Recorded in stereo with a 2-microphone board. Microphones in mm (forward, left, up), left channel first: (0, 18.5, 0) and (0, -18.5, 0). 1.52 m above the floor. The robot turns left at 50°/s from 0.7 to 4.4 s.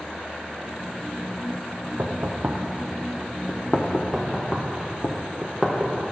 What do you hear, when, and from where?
2.0 s knocking: 55° right (ahead or behind), 0.5 m; by 5.1 s 55° left (ahead or behind), 0.5 m
4.1 s knocking: 5° right (ahead or behind), 0.7 m; by 5.9 s centre (ahead or behind), 0.7 m